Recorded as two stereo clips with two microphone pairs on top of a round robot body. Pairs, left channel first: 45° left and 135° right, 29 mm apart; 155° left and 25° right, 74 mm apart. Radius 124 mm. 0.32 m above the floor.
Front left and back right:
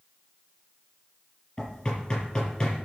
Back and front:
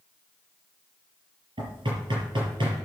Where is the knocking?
20° right, 5.5 m.